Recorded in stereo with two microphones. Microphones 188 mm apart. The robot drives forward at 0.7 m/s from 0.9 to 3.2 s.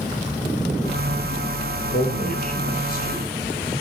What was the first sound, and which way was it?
A man speaking, 45° left (ahead or behind).